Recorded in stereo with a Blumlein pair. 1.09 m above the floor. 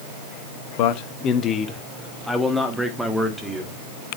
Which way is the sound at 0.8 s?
45° left.